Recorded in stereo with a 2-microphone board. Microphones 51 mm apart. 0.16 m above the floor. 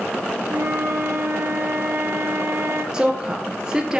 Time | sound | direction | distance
0.5 | a flute | 70° right (ahead or behind) | 1.2 m
2.9 | a woman speaking | 15° right (ahead or behind) | 2.5 m